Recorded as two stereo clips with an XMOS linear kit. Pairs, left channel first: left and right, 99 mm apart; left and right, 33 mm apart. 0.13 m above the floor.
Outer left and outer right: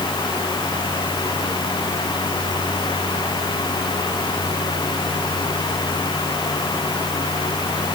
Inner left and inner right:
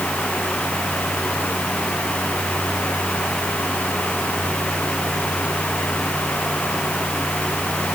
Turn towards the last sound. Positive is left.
No sound to turn to.